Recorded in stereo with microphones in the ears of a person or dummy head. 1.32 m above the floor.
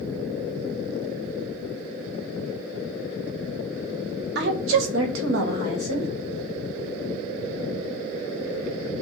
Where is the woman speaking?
60° right (ahead or behind), 1.0 m; by 6.1 s 30° right (ahead or behind), 1.3 m.